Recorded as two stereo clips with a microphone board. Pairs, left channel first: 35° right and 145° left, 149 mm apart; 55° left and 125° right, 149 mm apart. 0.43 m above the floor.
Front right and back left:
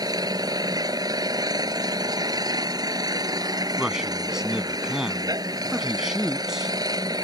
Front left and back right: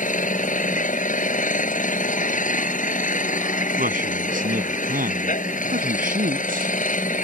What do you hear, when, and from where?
0.0 s an engine running: 85° left
3.8 s a man speaking: 130° right